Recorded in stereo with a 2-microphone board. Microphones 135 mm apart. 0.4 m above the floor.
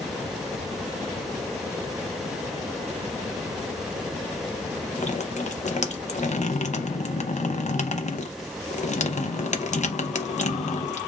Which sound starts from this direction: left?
Dripping, at 5.0 s.